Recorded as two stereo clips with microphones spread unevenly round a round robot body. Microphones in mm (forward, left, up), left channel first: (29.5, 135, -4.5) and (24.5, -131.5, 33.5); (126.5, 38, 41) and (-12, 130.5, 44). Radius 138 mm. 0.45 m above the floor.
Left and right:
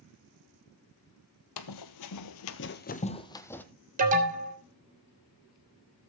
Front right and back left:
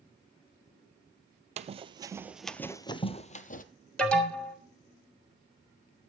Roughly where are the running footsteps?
Left.